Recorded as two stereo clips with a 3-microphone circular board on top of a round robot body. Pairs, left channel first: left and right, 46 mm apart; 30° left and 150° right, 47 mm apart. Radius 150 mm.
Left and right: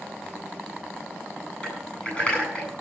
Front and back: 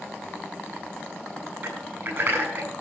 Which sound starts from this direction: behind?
Typing on a keyboard, at 1.6 s.